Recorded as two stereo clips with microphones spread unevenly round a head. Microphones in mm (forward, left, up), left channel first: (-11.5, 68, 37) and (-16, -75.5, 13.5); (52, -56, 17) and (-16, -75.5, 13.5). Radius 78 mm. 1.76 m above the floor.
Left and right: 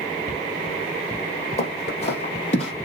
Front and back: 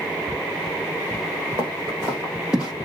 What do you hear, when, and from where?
1.6 s footsteps: 130° left, 4 m; by 2.7 s 115° left, 3 m